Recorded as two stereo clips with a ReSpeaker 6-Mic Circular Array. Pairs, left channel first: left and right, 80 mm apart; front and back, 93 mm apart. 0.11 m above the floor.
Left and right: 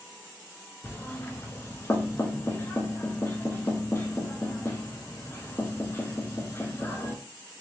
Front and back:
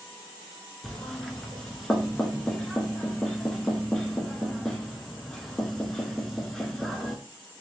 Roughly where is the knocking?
Left.